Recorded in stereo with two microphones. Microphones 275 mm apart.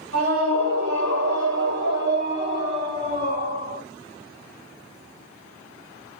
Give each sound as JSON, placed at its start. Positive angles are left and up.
{"t": 0.1, "sound": "a scream", "side_deg": -55, "distance_m": 4.5}